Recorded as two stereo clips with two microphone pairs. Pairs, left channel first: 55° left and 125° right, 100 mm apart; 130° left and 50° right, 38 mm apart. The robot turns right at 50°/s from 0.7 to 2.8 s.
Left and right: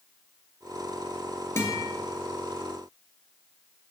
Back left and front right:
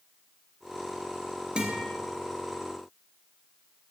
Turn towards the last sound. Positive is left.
turn(degrees=65)